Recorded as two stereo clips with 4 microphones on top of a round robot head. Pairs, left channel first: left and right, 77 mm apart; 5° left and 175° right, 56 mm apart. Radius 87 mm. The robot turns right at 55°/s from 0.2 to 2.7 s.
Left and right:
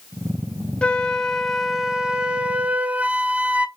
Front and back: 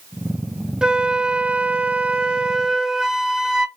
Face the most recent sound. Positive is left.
turn(degrees=-120)